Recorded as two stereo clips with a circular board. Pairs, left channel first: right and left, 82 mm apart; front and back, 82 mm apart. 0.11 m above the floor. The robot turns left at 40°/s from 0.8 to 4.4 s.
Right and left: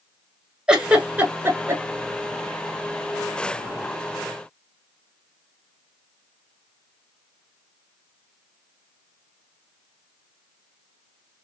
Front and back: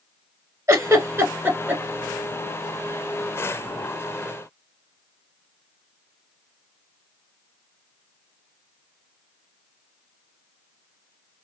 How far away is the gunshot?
No gunshot in this recording.